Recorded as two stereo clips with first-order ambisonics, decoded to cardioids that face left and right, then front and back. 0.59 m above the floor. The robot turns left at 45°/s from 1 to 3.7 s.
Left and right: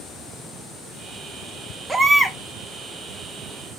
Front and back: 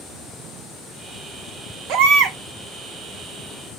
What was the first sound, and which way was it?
A baby crying, 170° right.